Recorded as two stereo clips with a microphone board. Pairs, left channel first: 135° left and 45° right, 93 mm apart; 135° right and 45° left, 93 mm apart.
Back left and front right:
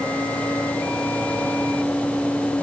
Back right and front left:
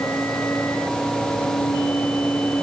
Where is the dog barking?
I don't hear a dog barking.